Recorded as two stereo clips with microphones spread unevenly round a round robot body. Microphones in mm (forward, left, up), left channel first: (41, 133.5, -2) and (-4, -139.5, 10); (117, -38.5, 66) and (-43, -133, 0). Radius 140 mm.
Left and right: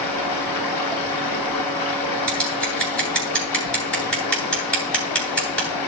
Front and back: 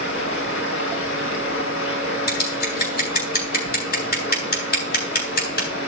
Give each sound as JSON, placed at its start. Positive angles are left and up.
{"t": 0.0, "sound": "running water", "azimuth_deg": 85, "distance_m": 3.0}
{"t": 2.3, "sound": "scissors", "azimuth_deg": -5, "distance_m": 9.5}